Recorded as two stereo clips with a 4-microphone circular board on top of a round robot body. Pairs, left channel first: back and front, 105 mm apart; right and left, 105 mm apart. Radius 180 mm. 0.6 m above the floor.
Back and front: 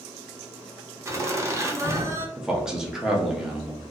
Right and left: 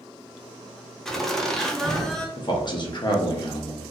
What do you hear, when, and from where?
1.1 s laughter: 10° right, 0.8 m
2.4 s a man speaking: 85° right, 0.8 m